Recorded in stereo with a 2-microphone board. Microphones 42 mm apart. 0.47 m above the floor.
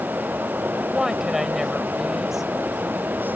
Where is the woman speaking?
10° right (ahead or behind).